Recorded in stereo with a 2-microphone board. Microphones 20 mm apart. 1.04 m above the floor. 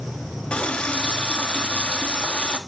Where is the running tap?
85° left, 1.2 m.